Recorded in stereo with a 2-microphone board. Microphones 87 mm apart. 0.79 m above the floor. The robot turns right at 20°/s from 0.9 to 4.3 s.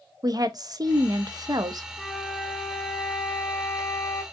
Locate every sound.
0.2 s a woman speaking: 50° right (ahead or behind), 0.5 m
2.0 s a flute: 5° right, 1.2 m; by 4.2 s 45° left, 1.2 m